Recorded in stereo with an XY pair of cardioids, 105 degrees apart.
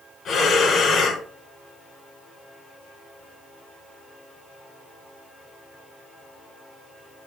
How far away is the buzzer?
I don't hear a buzzer.